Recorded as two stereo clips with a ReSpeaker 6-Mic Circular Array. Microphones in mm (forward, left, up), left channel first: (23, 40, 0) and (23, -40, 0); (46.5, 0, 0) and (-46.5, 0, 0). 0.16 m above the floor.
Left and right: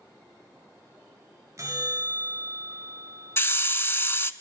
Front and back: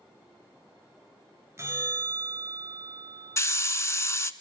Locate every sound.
1.6 s a bell: 130° right, 1.6 m
3.4 s a hiss: 45° left, 0.6 m